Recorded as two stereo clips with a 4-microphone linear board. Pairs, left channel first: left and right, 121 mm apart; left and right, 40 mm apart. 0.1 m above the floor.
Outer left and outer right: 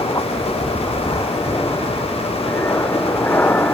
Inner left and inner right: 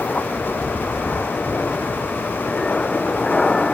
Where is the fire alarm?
No fire alarm in this recording.